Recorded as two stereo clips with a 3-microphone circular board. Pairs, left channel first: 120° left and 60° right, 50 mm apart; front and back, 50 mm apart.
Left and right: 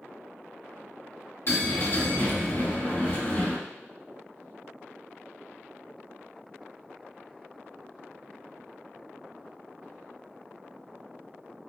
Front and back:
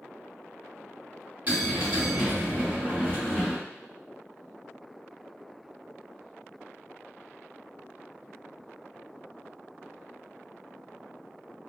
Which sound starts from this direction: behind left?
A bell, at 1.5 s.